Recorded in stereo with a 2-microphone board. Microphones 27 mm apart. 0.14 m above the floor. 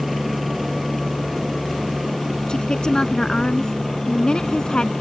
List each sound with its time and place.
0.0 s a helicopter: centre (ahead or behind); by 5.0 s 10° left (ahead or behind)
2.5 s a woman speaking: 30° left (ahead or behind)